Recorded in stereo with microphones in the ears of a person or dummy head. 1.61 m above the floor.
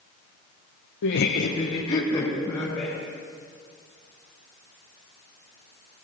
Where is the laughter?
75° left (ahead or behind), 1.0 m; by 2.9 s 15° left (ahead or behind), 2.5 m.